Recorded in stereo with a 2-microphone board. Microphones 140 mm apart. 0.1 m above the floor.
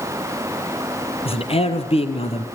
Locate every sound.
1.2 s a man speaking: 45° left (ahead or behind), 2.5 m